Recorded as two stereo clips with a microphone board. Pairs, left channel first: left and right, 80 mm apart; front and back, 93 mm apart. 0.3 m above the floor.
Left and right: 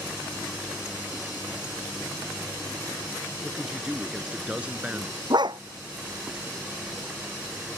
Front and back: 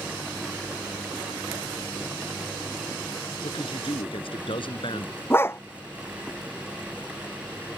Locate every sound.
3.4 s a man speaking: 5° right; by 5.2 s 20° right
5.3 s a dog barking: 65° right